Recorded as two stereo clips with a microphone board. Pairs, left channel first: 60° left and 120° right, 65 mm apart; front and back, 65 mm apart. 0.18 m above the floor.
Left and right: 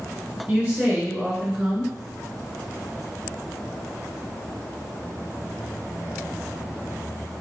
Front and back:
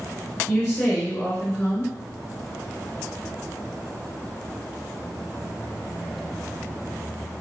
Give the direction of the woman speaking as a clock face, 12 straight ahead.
2 o'clock.